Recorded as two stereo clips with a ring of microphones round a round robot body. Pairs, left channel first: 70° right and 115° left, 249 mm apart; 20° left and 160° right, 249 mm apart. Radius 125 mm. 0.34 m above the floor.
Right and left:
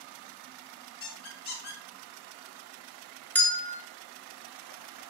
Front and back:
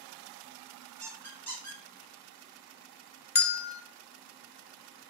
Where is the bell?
10° left, 0.7 m.